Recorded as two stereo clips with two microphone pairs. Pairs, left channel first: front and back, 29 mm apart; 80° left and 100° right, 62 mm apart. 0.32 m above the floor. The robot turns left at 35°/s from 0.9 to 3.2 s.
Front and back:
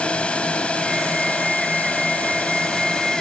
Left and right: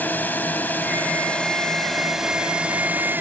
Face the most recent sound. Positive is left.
turn(degrees=-50)